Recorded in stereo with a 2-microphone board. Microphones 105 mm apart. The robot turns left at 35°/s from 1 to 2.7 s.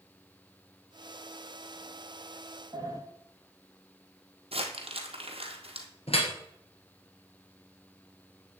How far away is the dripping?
About 1.9 m.